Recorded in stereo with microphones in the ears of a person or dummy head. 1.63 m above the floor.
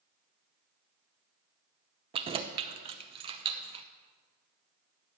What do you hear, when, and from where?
2.1 s keys jangling: 30° right (ahead or behind), 0.7 m